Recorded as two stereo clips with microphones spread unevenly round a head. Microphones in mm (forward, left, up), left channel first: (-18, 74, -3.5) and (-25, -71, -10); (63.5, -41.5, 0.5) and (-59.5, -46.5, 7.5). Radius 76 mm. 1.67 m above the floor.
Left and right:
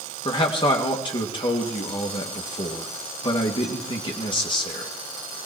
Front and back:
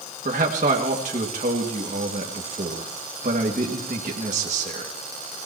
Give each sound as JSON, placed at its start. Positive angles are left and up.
{"t": 0.2, "sound": "a man speaking", "azimuth_deg": 140, "distance_m": 1.9}